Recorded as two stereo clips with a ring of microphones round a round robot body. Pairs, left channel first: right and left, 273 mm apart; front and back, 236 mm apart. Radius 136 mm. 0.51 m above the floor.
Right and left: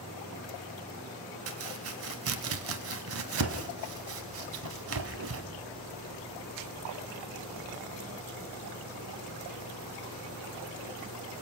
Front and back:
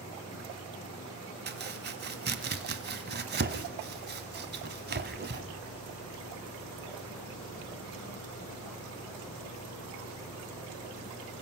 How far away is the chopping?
About 1.4 m.